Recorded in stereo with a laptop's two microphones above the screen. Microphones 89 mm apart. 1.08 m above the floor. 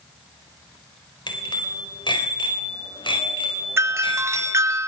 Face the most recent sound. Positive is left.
turn(degrees=-30)  # may be behind; listen again after turning